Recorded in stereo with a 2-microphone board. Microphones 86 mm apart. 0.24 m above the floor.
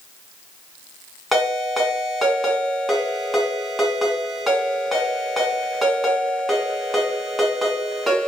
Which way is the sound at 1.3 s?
Centre (ahead or behind).